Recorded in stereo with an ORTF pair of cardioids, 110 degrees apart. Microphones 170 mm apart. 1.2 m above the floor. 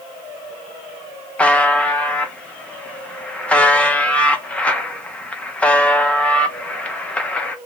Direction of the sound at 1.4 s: 10° left.